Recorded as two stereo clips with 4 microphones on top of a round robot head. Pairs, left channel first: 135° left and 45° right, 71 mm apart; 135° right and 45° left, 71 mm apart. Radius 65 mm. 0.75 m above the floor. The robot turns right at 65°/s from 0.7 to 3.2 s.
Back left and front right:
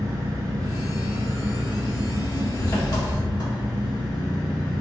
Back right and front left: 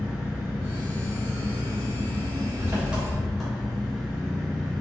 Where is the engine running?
25° right, 1.7 m; by 4.8 s 140° left, 1.7 m.